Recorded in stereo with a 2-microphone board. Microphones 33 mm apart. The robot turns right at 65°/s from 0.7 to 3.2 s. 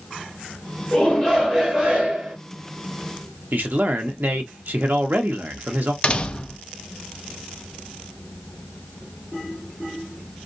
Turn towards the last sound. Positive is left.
turn(degrees=30)  # may be behind; listen again after turning